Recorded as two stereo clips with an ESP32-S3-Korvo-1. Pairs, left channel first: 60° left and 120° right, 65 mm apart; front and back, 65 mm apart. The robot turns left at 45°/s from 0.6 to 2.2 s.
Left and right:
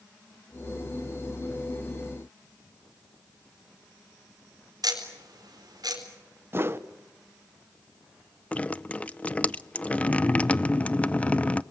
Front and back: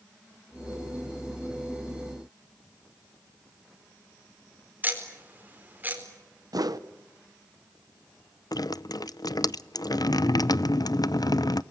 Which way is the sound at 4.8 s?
120° right.